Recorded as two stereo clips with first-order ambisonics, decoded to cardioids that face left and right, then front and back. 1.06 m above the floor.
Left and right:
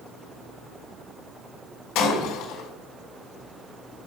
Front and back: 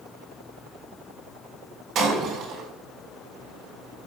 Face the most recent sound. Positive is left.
turn(degrees=125)